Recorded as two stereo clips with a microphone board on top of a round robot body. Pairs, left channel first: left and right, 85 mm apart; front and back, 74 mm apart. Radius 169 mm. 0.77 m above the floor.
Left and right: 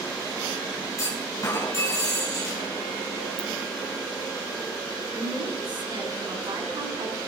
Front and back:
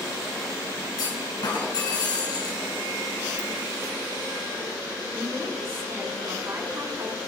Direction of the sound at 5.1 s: 120° right.